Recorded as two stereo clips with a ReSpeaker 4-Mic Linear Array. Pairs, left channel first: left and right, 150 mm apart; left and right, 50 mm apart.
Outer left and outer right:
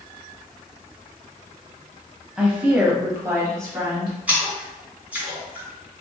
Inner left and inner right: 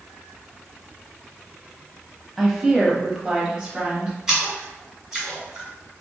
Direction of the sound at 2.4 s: 5° right (ahead or behind).